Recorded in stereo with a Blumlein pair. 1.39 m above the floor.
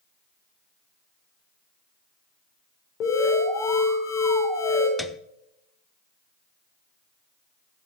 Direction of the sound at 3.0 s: 35° left.